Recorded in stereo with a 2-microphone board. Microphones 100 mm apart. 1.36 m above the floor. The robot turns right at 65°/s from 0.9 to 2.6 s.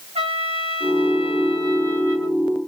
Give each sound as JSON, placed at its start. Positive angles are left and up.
{"t": 0.1, "sound": "a trumpet", "azimuth_deg": -95, "distance_m": 3.0}